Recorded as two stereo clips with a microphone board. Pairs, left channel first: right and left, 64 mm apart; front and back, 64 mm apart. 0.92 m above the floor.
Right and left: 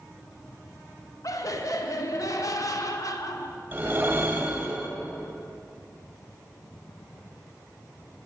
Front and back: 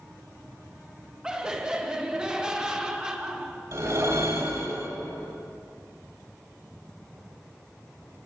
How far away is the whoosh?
About 1.7 m.